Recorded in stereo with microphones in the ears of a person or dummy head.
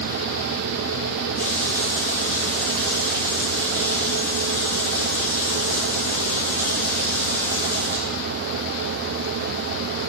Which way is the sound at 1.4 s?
15° left (ahead or behind).